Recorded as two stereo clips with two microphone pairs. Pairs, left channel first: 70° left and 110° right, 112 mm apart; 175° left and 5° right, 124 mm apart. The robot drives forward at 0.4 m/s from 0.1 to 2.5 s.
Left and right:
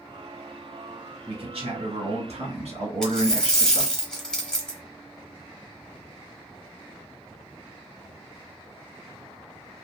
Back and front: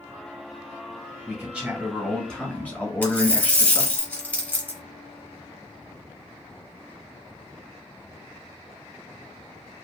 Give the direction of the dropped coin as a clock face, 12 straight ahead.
8 o'clock.